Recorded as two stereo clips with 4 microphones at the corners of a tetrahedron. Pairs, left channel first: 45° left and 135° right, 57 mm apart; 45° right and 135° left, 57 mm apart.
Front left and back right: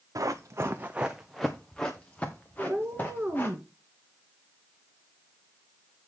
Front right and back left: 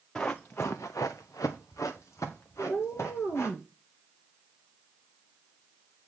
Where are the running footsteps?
115° right, 1.2 m; by 3.6 s 10° right, 3.5 m.